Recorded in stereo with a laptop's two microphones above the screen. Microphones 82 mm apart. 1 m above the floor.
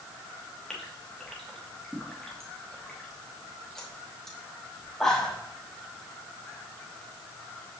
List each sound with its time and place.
0.7 s a gasp: 5° left (ahead or behind), 1.2 m